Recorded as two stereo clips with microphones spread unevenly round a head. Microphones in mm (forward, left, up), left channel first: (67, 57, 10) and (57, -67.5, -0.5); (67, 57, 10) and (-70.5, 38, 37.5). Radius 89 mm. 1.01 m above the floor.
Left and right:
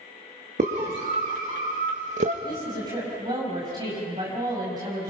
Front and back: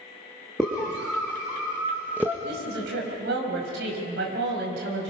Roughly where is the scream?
Right.